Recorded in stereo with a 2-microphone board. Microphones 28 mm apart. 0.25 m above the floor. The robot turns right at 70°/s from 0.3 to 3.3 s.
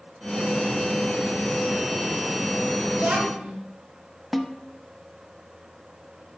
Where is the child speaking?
70° right (ahead or behind), 2.5 m; by 3.5 s 60° right (ahead or behind), 2.5 m.